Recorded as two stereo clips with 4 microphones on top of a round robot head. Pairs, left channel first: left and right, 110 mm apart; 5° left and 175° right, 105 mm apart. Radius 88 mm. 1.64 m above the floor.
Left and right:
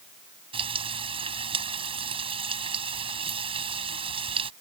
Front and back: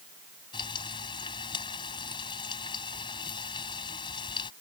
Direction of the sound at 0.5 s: 55° right.